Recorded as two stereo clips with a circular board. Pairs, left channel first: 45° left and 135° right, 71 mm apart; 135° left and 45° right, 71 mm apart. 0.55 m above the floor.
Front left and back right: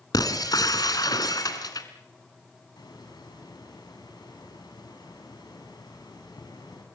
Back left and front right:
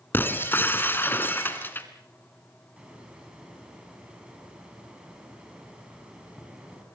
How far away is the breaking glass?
About 2 m.